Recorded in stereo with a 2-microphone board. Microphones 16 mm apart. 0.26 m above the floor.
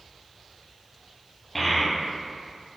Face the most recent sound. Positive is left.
turn(degrees=10)  # may be behind; listen again after turning